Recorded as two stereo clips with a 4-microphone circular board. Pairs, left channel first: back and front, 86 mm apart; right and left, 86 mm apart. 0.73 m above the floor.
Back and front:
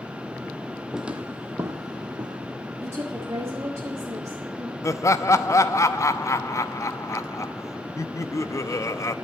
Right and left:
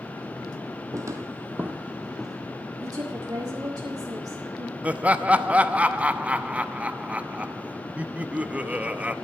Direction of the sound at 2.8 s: 55° left.